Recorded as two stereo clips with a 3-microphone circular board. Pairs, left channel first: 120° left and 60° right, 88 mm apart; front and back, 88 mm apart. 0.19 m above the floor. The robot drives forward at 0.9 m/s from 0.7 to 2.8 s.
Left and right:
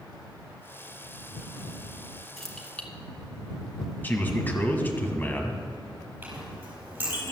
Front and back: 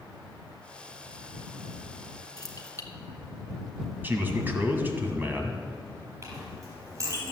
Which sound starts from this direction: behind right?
A clink, at 6.2 s.